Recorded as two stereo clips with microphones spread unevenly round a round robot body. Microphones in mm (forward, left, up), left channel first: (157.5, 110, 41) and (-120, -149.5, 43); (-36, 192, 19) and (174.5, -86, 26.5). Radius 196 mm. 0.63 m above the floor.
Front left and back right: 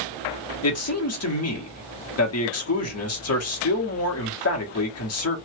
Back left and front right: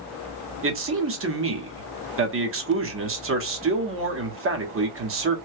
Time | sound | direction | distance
0.6 | a man speaking | 5° right | 1.2 m